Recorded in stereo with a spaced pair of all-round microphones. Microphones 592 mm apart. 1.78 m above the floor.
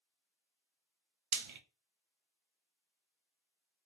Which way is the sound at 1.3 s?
55° right (ahead or behind).